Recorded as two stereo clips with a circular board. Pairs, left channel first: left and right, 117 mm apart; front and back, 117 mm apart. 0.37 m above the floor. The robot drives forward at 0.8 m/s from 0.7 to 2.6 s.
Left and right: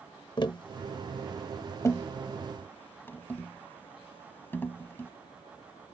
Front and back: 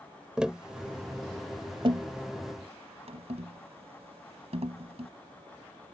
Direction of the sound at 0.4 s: 100° left.